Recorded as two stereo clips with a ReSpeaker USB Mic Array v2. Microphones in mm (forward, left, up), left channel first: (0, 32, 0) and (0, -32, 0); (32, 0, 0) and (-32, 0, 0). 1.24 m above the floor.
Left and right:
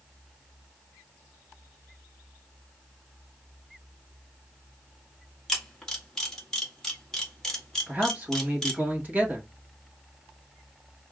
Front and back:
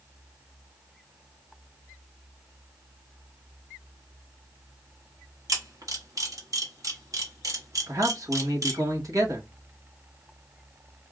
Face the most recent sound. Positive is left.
turn(degrees=-150)